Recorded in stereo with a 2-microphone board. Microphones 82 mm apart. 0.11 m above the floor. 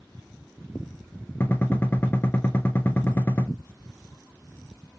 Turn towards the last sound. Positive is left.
turn(degrees=25)  # may be behind; listen again after turning